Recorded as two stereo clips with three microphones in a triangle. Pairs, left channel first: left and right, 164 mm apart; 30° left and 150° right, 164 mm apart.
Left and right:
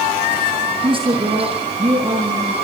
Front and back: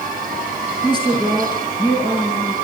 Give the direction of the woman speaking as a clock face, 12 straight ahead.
1 o'clock.